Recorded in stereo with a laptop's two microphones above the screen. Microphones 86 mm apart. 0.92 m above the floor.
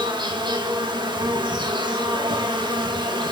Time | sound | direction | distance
0.0 | an insect | 60° right (ahead or behind) | 1.9 m